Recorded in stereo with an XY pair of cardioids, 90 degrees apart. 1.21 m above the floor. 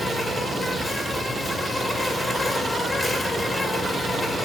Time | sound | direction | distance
0.0 | an insect | 25° left | 2 m